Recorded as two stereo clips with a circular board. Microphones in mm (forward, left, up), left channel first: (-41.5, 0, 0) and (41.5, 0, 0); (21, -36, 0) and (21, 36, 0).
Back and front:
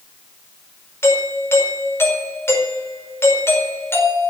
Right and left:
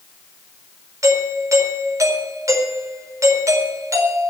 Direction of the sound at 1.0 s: 125° left.